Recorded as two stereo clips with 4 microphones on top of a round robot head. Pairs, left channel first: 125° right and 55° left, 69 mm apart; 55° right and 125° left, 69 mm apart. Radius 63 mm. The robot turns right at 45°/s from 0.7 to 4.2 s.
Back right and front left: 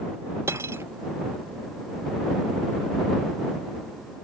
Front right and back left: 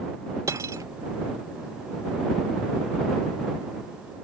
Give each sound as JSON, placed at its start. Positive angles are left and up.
{"t": 0.5, "sound": "cutlery clinking", "azimuth_deg": 95}